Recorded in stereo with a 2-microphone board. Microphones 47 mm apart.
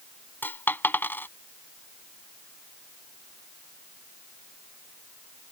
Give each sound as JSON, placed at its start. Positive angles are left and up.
{"t": 0.4, "sound": "a dropped coin", "side_deg": 45}